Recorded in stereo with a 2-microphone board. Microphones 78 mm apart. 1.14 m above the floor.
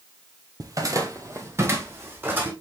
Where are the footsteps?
45° right (ahead or behind), 1.6 m; by 2.5 s 25° right (ahead or behind), 3 m.